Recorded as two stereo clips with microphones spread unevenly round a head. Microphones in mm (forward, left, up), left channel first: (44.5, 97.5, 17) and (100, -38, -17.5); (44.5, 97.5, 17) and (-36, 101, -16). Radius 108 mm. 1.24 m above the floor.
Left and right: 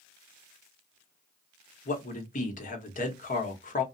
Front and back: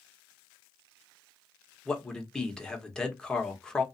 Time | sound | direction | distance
1.9 | a man speaking | 80° left | 1.1 m